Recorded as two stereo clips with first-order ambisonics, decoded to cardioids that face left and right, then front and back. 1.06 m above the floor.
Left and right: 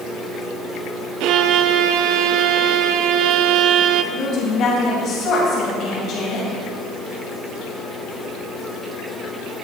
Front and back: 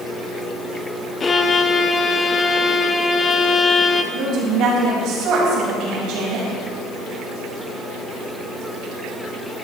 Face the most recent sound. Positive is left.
turn(degrees=140)